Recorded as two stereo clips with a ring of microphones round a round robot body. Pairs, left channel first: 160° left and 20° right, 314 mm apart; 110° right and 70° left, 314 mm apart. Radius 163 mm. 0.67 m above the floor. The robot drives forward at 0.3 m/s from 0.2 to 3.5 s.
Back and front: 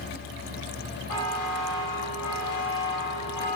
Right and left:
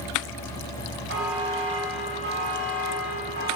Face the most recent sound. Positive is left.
turn(degrees=125)